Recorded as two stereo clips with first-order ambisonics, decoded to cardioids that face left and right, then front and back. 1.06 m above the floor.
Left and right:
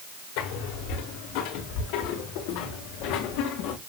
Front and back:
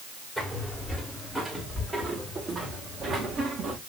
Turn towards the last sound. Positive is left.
turn(degrees=115)